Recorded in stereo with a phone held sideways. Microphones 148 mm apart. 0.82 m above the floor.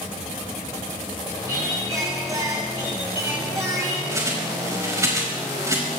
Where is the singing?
25° right (ahead or behind), 6.5 m.